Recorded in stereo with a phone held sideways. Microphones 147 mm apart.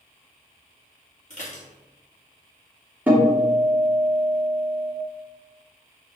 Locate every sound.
1.3 s dishes clattering: 60° left (ahead or behind), 1.9 m
3.1 s a guitar: 10° right (ahead or behind), 2.5 m